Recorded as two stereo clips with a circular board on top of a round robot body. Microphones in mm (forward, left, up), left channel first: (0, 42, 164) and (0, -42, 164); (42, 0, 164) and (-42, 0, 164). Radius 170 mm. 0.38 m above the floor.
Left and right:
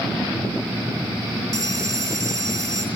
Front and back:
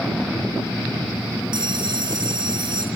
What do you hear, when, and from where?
1.5 s a bell: 145° right, 5.5 m